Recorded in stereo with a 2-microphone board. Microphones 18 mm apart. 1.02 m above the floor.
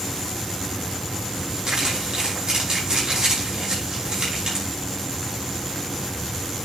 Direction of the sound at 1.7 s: 45° right (ahead or behind).